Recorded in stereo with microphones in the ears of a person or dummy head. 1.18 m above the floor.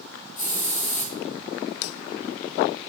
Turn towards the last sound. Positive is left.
turn(degrees=40)  # may be behind; listen again after turning